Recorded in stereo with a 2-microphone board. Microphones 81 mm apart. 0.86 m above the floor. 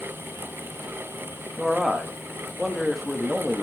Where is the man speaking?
Centre (ahead or behind), 1.3 m.